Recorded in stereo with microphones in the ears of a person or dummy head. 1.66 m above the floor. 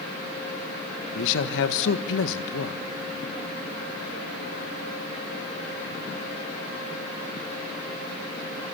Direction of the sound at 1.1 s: 70° left (ahead or behind).